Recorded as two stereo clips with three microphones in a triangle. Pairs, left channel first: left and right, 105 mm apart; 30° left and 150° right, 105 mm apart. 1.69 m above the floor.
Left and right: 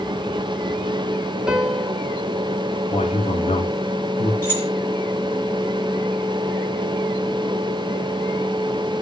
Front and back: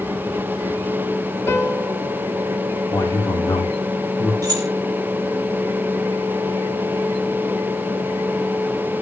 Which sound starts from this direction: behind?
Keys jangling, at 4.4 s.